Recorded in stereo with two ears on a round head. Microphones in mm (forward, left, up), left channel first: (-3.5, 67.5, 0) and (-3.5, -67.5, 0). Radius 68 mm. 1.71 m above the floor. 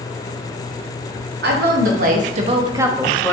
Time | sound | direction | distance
1.4 | a woman speaking | 70° right (ahead or behind) | 1.0 m